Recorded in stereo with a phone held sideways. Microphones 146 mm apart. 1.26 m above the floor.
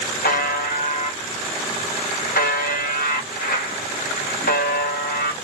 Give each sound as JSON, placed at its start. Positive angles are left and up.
{"t": 0.2, "sound": "a buzzer", "side_deg": 85, "distance_m": 0.9}